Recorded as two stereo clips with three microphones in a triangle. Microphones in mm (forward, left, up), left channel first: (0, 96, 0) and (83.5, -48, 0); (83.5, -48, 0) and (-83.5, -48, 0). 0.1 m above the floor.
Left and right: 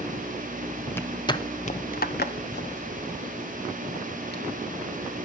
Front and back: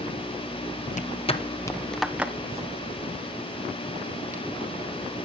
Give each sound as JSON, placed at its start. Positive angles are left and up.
{"t": 0.9, "sound": "footsteps", "azimuth_deg": 40, "distance_m": 2.0}